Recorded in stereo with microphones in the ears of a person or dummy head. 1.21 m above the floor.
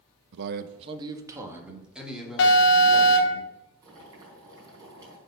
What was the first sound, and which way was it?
A man speaking, 70° right (ahead or behind).